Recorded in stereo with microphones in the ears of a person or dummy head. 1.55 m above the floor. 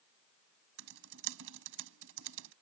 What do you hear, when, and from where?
0.8 s typing on a keyboard: 75° right (ahead or behind)